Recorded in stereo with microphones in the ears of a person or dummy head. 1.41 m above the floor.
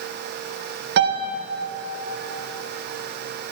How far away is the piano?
About 0.8 m.